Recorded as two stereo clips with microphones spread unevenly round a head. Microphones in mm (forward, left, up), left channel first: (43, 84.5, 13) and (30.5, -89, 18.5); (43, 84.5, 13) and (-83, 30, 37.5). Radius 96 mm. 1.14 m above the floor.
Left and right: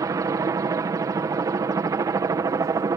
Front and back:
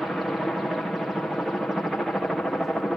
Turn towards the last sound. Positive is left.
turn(degrees=-50)